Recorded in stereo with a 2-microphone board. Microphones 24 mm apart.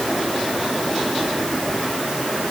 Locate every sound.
Only background noise.